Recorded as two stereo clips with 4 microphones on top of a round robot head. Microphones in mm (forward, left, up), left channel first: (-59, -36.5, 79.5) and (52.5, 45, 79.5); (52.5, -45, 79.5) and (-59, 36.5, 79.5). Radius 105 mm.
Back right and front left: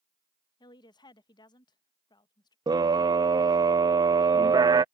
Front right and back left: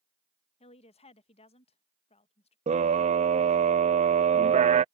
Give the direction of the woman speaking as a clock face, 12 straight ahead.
3 o'clock.